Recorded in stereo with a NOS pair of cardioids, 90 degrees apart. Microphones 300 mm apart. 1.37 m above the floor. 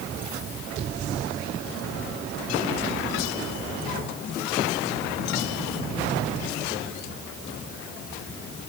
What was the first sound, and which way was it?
Only background noise.